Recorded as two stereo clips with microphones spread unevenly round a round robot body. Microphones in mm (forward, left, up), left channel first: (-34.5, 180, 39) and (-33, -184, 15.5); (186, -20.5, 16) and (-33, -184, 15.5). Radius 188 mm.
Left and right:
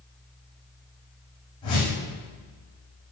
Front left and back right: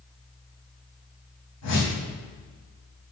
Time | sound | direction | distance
1.6 | a whoosh | 15° left | 4 m